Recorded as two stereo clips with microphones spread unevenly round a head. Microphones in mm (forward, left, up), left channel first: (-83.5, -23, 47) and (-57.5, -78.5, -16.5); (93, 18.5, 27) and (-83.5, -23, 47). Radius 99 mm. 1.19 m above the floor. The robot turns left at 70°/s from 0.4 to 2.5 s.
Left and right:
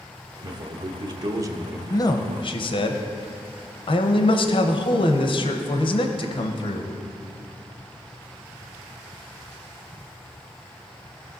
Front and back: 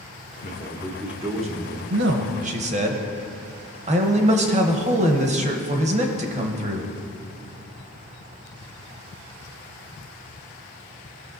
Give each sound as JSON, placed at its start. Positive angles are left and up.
{"t": 0.4, "sound": "a man speaking", "azimuth_deg": -35, "distance_m": 1.0}
{"t": 1.9, "sound": "a man speaking", "azimuth_deg": 180, "distance_m": 0.9}